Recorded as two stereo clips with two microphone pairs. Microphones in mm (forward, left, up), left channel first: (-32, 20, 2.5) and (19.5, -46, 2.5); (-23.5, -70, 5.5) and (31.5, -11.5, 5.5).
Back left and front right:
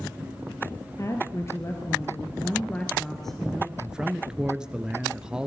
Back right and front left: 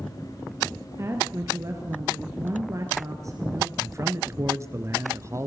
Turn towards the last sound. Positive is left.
turn(degrees=25)